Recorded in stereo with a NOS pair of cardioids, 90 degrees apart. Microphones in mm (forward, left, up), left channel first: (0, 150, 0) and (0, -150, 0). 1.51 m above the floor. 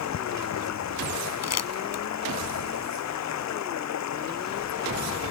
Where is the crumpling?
60° left.